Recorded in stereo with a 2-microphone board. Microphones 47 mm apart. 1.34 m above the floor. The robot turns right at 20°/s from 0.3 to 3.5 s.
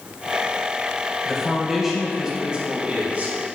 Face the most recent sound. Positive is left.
turn(degrees=-140)